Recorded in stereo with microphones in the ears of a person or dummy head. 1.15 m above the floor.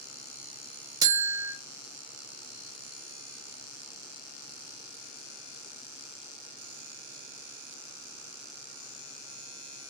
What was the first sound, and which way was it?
A buzzer, 25° right (ahead or behind).